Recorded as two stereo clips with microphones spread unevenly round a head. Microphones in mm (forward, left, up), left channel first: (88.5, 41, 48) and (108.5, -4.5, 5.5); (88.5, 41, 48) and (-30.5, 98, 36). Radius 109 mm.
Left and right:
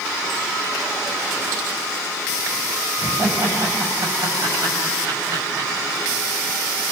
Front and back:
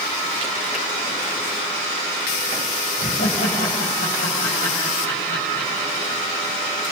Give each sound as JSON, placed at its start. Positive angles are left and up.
{"t": 3.0, "sound": "laughter", "azimuth_deg": -70, "distance_m": 6.5}